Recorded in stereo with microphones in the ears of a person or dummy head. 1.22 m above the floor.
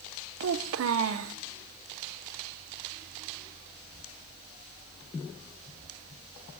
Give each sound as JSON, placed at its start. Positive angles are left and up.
{"t": 0.4, "sound": "a child speaking", "side_deg": -80, "distance_m": 0.6}